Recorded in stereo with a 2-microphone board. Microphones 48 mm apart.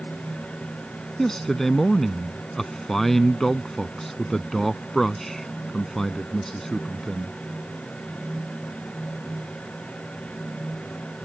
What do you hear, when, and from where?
1.2 s a man speaking: 5° left (ahead or behind)